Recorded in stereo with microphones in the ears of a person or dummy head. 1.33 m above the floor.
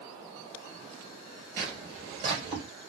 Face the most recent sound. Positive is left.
turn(degrees=-35)  # may be behind; listen again after turning